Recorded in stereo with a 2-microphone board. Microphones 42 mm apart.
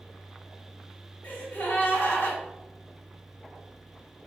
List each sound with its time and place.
1.2 s a gasp: 55° left (ahead or behind), 1.2 m